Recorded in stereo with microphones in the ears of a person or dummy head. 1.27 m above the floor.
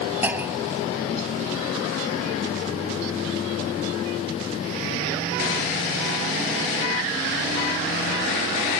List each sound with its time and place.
0.2 s a clunk: 10° right (ahead or behind)